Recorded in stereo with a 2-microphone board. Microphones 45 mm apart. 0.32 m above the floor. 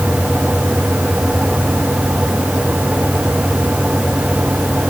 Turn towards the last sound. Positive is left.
No sound to turn to.